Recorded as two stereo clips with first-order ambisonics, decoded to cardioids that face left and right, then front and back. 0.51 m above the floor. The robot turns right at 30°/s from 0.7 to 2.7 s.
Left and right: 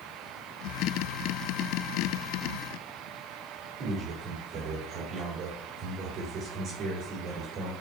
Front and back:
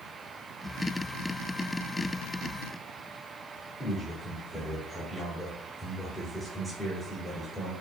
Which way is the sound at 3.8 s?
100° right.